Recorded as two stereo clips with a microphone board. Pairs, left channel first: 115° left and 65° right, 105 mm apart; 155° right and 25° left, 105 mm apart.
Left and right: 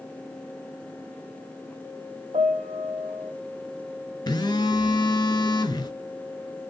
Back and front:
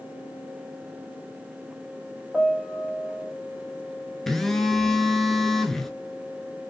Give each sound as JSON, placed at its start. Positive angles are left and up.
{"t": 2.3, "sound": "a piano", "azimuth_deg": -65, "distance_m": 0.5}
{"t": 4.3, "sound": "a phone buzzing", "azimuth_deg": 115, "distance_m": 0.6}